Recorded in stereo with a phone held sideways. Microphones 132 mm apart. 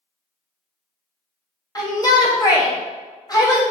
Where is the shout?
30° left (ahead or behind), 1.3 m.